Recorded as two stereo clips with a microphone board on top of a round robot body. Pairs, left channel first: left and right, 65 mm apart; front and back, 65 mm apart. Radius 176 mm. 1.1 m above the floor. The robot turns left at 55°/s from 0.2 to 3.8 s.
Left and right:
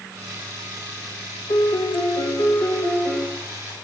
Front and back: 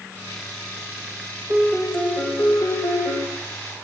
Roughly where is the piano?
Behind left.